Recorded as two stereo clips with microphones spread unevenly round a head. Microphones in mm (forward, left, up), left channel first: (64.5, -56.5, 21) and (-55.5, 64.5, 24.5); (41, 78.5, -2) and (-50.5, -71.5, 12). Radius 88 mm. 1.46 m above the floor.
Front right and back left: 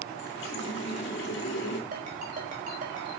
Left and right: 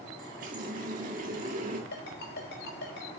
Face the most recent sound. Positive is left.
turn(degrees=85)